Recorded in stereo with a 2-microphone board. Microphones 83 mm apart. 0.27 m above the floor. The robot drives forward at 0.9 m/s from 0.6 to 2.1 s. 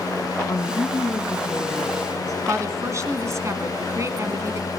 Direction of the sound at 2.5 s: 40° right (ahead or behind).